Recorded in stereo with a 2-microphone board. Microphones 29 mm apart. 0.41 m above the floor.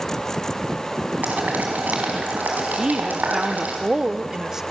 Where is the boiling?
70° right (ahead or behind), 4 m.